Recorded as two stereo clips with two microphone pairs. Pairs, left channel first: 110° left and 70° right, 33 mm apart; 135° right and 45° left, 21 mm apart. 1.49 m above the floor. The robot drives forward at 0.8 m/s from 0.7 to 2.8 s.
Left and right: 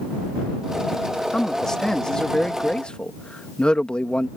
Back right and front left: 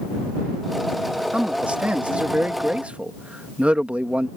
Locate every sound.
1.3 s a man speaking: 35° left; by 4.3 s 50° left